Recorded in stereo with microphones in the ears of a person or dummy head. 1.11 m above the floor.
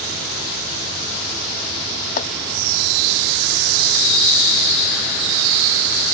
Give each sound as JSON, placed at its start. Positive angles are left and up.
{"t": 2.2, "sound": "chopping", "side_deg": 55}